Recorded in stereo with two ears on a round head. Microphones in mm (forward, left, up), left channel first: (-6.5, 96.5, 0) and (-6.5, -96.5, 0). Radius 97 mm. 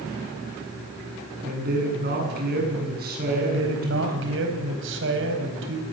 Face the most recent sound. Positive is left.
turn(degrees=-60)  # may be behind; listen again after turning